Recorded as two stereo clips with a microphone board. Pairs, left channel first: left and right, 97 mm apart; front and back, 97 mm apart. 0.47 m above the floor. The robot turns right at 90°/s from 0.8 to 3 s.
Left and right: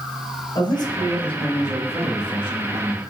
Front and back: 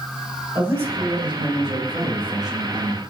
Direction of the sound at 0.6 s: 115° left.